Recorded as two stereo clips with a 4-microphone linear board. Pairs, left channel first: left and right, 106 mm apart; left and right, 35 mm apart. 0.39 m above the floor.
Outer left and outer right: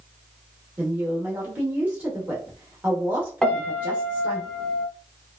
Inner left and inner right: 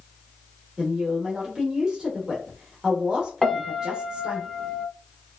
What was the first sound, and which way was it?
A woman speaking, 15° right (ahead or behind).